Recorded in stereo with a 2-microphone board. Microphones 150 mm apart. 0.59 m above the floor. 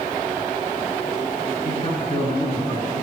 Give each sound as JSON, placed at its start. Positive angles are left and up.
{"t": 1.6, "sound": "a man speaking", "side_deg": 35, "distance_m": 6.0}